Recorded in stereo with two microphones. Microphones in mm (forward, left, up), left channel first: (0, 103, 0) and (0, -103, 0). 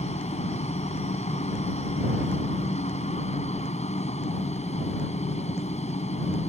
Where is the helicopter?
30° left (ahead or behind).